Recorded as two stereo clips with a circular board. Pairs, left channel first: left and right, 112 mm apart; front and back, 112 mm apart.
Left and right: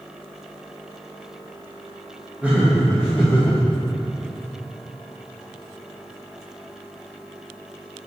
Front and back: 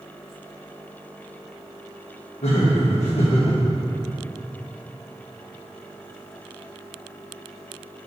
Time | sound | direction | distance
2.4 | laughter | 15° right | 1.4 m